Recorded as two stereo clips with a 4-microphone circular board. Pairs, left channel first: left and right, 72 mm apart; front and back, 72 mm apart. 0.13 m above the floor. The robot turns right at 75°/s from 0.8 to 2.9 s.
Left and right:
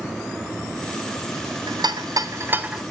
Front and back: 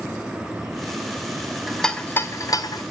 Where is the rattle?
95° right, 0.8 m; by 2.8 s 10° right, 0.8 m.